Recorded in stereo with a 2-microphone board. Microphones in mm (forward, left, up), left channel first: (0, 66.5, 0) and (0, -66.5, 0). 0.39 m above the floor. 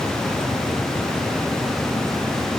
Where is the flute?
No flute in this recording.